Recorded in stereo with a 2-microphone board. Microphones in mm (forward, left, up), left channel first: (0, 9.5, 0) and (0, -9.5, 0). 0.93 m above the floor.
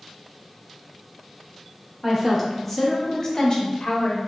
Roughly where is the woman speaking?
Centre.